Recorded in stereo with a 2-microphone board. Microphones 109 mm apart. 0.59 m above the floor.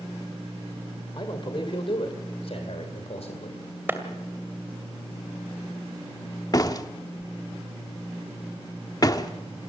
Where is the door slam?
35° left (ahead or behind), 1.0 m.